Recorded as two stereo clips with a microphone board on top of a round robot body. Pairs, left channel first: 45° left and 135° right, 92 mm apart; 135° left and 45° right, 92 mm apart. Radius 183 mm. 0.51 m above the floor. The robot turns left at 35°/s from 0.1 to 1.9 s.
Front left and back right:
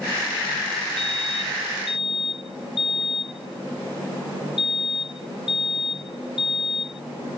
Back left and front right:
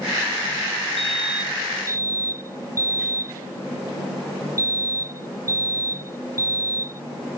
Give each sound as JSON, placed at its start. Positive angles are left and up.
{"t": 1.0, "sound": "a fire alarm", "azimuth_deg": 50}